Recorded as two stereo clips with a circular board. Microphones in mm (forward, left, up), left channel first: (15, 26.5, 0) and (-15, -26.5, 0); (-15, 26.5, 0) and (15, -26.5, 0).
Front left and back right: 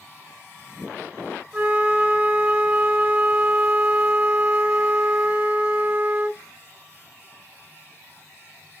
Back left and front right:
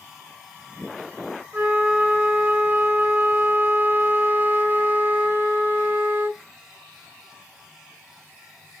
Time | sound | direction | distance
1.5 | a flute | 65° right | 1.0 m